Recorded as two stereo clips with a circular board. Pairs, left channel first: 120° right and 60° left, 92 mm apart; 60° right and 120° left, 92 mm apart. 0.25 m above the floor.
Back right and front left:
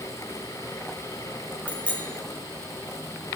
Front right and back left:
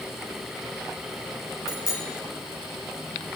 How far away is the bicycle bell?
About 4.5 m.